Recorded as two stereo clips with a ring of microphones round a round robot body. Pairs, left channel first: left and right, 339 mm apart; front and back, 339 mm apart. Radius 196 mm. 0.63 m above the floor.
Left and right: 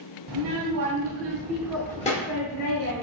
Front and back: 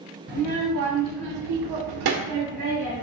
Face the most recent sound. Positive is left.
turn(degrees=130)